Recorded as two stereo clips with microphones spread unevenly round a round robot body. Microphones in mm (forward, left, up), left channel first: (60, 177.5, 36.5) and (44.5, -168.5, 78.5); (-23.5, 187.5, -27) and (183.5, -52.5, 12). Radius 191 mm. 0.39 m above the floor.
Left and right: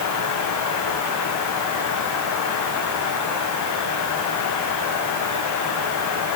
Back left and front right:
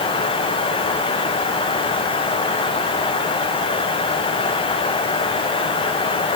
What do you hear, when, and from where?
Only background noise.